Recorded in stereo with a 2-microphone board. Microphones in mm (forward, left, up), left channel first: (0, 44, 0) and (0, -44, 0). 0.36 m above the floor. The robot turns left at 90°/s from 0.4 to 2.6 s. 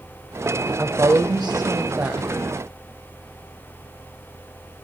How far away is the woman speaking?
About 1.2 m.